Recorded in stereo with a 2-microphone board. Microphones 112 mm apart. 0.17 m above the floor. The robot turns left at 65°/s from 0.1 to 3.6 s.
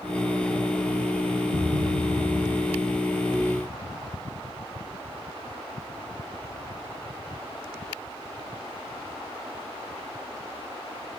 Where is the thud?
85° right, 3 m; by 2.9 s 175° right, 3 m.